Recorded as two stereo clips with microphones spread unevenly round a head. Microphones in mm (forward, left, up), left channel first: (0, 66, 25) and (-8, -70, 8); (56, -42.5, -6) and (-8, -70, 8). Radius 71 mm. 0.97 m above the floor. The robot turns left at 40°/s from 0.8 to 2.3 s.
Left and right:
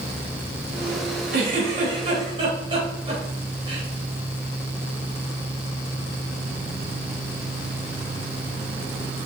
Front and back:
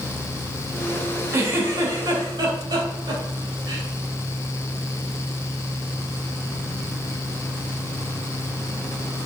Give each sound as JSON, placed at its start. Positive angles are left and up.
{"t": 1.3, "sound": "a giggle", "azimuth_deg": -110, "distance_m": 3.5}